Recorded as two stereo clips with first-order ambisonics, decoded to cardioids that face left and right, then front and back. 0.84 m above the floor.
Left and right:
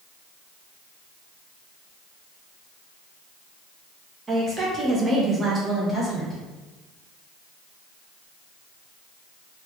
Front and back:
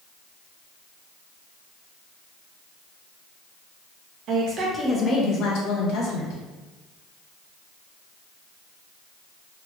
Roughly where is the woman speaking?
Behind.